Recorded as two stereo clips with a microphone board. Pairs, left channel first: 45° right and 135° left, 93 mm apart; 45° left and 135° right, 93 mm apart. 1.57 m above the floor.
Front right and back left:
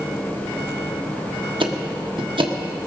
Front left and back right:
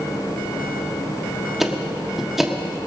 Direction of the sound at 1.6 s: 140° left.